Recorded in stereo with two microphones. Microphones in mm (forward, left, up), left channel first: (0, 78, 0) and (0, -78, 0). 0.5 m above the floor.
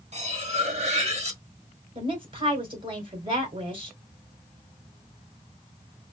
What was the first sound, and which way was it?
Cutlery clinking, 45° right (ahead or behind).